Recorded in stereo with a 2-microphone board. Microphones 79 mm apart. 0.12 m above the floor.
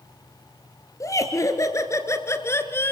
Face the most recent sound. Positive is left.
turn(degrees=30)  # may be behind; listen again after turning